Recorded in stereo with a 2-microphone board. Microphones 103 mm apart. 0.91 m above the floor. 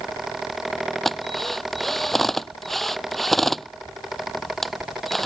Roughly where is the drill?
Centre.